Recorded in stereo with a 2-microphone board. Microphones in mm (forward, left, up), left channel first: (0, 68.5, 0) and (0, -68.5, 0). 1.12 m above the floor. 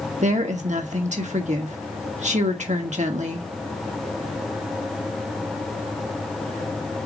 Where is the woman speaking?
60° right (ahead or behind), 1.5 m.